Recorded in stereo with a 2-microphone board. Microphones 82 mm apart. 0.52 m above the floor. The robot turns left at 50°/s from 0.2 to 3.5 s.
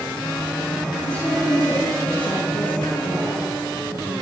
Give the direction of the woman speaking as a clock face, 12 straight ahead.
6 o'clock.